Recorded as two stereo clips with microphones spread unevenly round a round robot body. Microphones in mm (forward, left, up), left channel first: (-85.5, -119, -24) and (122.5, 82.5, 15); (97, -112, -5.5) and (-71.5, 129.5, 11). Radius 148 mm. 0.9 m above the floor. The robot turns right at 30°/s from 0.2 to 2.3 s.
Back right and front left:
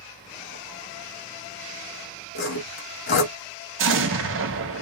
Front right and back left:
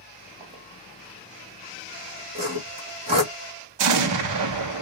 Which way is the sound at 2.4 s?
170° right.